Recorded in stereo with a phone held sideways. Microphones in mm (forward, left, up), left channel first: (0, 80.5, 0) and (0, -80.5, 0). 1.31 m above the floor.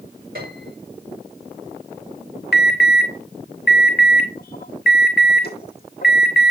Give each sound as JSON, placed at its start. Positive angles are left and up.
{"t": 0.3, "sound": "a piano", "side_deg": -75, "distance_m": 4.5}
{"t": 2.5, "sound": "an alarm", "side_deg": 75, "distance_m": 1.9}